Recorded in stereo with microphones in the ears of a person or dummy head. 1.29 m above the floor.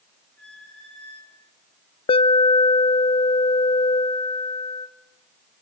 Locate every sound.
0.4 s a squeak: 5° left (ahead or behind), 3.5 m
2.1 s an alarm: 30° left (ahead or behind), 0.7 m